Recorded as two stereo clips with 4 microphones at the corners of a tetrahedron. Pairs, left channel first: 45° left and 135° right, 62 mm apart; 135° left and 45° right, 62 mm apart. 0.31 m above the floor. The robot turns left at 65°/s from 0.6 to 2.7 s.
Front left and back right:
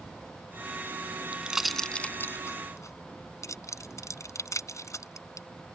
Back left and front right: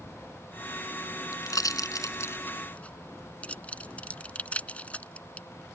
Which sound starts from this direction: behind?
A pop, at 1.3 s.